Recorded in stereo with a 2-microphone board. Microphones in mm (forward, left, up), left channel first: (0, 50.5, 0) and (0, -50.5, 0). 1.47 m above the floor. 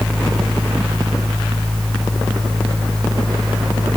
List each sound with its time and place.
Only background noise.